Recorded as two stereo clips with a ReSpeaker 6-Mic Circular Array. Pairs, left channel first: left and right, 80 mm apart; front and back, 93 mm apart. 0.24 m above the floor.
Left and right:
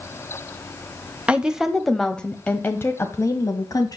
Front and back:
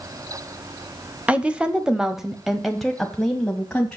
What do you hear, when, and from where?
1.3 s a woman speaking: 135° right, 1.0 m; by 4.0 s 80° left, 1.5 m